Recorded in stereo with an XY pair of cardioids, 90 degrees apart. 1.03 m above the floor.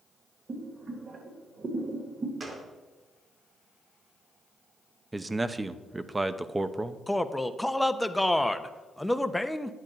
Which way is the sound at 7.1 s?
5° left.